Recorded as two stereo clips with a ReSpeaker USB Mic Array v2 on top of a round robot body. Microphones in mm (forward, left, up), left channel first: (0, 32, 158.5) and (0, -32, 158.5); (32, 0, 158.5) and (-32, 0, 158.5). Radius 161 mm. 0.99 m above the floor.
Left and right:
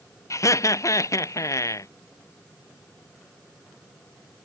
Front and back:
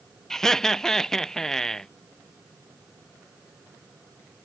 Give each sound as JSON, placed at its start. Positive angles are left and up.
{"t": 0.3, "sound": "laughter", "azimuth_deg": 80}